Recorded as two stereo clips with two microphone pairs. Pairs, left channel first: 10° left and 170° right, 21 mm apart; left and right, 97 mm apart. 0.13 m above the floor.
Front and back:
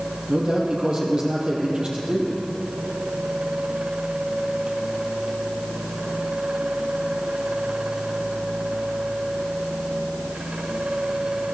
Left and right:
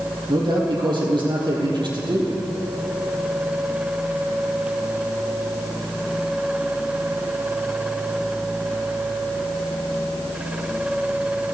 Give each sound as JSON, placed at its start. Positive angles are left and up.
{"t": 0.3, "sound": "a man speaking", "azimuth_deg": -130, "distance_m": 3.5}